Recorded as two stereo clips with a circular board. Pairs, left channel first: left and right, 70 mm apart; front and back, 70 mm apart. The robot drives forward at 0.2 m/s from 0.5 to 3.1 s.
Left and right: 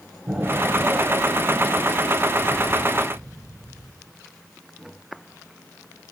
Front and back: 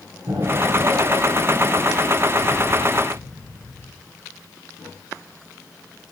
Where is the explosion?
170° right, 2 m.